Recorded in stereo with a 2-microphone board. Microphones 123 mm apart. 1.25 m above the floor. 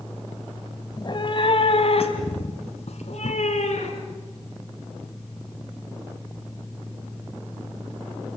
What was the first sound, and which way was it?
A cat meowing, 35° left (ahead or behind).